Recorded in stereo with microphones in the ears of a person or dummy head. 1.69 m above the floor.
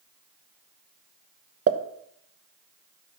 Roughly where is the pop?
Right.